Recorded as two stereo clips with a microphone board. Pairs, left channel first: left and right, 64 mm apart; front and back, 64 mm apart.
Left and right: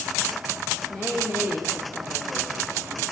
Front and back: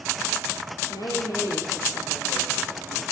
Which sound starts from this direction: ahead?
A woman speaking, at 0.9 s.